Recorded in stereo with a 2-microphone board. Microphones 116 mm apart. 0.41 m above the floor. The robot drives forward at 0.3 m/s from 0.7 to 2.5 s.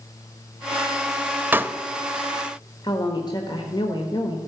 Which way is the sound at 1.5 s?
15° right (ahead or behind).